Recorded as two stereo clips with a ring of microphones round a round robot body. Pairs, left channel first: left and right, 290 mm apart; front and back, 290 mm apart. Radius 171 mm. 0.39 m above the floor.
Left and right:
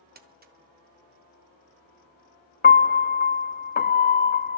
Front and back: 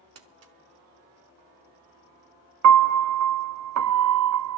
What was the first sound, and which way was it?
Crumpling, 150° right.